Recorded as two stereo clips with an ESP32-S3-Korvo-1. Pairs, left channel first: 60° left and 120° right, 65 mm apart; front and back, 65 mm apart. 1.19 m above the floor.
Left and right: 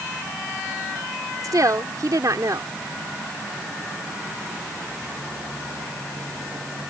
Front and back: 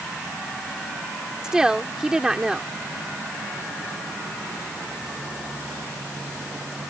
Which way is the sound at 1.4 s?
100° right.